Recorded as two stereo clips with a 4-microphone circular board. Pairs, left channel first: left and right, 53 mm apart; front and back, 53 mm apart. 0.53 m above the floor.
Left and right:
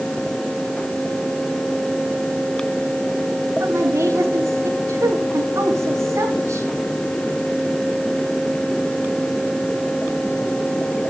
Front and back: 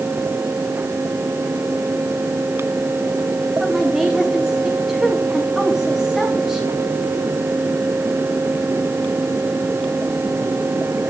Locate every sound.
3.6 s a woman speaking: 95° right, 5.5 m